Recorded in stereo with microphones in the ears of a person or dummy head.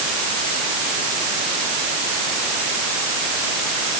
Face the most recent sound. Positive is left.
No sound to turn to.